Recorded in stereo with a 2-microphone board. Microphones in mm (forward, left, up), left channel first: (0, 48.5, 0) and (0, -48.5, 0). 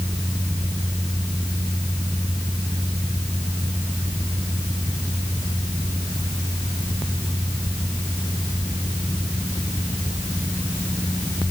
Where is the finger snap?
No finger snap in this recording.